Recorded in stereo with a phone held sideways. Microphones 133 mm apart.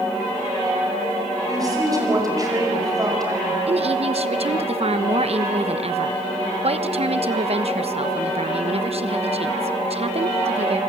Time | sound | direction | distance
1.5 | a woman speaking | 30° right (ahead or behind) | 5.5 m
3.7 | a woman speaking | 50° right (ahead or behind) | 1.1 m